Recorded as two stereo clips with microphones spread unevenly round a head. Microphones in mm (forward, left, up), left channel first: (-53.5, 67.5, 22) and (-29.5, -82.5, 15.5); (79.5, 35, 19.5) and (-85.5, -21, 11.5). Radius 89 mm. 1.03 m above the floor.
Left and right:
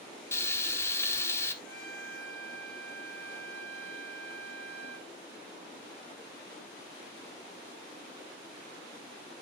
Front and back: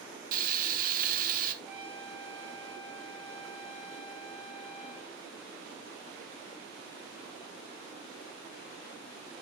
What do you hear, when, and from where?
0.3 s frying: 175° left, 1.2 m
1.6 s a trumpet: 120° right, 7 m